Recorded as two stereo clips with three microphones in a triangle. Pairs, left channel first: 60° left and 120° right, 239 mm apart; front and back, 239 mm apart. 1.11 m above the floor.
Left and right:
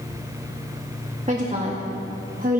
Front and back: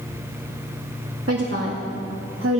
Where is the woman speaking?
175° right, 1.9 m; by 2.6 s 165° right, 1.0 m.